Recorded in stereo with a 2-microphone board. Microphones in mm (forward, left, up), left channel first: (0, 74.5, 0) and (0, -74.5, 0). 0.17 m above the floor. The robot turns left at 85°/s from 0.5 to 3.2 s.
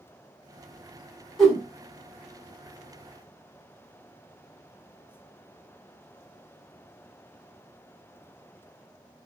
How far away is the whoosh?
About 1.1 m.